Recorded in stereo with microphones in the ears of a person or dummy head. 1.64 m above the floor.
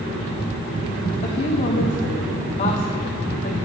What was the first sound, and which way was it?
A woman speaking, 30° left (ahead or behind).